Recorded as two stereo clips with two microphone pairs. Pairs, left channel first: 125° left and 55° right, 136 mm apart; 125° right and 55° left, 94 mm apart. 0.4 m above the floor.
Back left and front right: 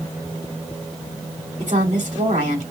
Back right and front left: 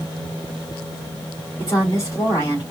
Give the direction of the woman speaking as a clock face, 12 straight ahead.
2 o'clock.